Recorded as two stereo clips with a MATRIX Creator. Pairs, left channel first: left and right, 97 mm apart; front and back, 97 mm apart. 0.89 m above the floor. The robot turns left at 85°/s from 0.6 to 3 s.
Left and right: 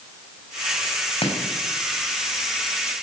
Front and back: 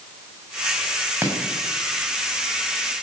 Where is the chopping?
115° left, 6.5 m; by 2.9 s 30° right, 6.5 m.